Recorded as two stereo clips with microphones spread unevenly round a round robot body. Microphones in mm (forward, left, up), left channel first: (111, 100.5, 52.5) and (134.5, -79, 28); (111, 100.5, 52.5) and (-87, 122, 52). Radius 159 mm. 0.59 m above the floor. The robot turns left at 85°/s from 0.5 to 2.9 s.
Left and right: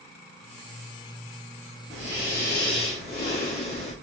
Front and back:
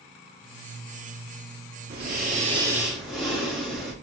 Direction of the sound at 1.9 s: 170° left.